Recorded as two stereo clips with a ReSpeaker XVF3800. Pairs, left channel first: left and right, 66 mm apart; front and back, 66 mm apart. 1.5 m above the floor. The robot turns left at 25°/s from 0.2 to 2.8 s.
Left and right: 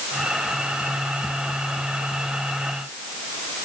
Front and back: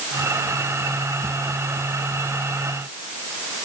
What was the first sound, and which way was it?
Only background noise.